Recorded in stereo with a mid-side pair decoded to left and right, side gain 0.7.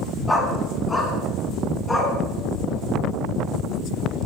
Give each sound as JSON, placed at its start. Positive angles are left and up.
{"t": 0.3, "sound": "a dog barking", "azimuth_deg": 5, "distance_m": 5.0}